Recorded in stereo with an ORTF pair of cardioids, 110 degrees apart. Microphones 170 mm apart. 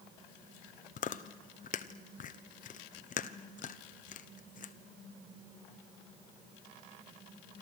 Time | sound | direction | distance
1.0 | chewing | 50° left | 1.2 m